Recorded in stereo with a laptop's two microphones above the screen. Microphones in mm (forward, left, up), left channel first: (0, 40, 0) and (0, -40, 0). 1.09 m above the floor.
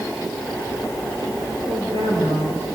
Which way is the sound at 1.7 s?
60° right (ahead or behind).